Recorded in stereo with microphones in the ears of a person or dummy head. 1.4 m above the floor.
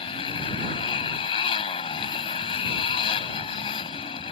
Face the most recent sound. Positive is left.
turn(degrees=25)  # may be behind; listen again after turning